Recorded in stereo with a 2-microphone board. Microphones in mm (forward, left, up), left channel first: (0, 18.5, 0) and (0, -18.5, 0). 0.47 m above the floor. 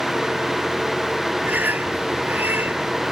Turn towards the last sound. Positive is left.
turn(degrees=-65)  # may be behind; listen again after turning